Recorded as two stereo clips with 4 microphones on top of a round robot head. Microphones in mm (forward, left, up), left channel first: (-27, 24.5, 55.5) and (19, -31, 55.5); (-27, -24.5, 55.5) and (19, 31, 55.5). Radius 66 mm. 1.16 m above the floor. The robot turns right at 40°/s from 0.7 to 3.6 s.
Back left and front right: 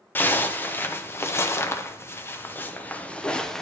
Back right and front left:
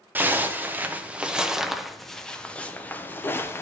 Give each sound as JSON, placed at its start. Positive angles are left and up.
{"t": 0.1, "sound": "a zipper", "azimuth_deg": 90, "distance_m": 0.7}